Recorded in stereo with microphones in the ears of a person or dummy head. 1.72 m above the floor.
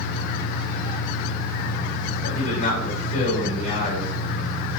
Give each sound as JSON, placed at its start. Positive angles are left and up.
{"t": 0.0, "sound": "an engine running", "side_deg": 70, "distance_m": 3.0}
{"t": 2.2, "sound": "a man speaking", "side_deg": 55, "distance_m": 6.0}